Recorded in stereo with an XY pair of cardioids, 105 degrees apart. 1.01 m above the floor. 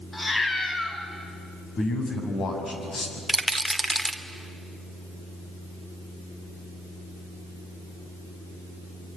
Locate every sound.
0.1 s a cat meowing: 25° left, 3.5 m
1.8 s a man speaking: 50° left, 6.5 m
3.3 s a rattle: 5° right, 1.7 m